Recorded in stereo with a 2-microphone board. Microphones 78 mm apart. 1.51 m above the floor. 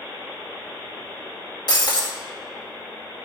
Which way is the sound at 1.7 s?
60° left (ahead or behind).